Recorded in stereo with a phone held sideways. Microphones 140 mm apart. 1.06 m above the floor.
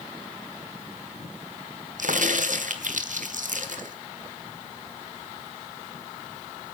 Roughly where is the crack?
Right.